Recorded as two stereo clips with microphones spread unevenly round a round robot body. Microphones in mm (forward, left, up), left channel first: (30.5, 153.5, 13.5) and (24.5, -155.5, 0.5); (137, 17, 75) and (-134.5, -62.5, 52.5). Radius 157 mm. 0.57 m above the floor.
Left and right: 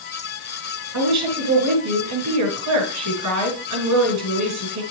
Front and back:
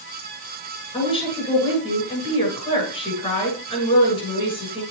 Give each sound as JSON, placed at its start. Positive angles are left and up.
{"t": 0.9, "sound": "a woman speaking", "azimuth_deg": -60, "distance_m": 6.5}